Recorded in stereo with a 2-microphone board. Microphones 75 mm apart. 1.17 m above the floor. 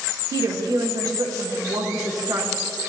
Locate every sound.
0.3 s a woman speaking: 55° right (ahead or behind), 1.5 m